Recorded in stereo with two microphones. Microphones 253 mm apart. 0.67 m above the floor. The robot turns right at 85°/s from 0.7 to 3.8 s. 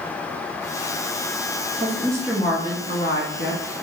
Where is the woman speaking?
45° right, 0.7 m; by 3.6 s 110° left, 0.7 m.